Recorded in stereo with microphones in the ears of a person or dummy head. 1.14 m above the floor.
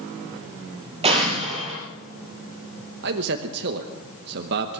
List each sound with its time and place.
1.0 s an explosion: 35° right (ahead or behind), 5 m
3.0 s a man speaking: 60° right (ahead or behind), 1.1 m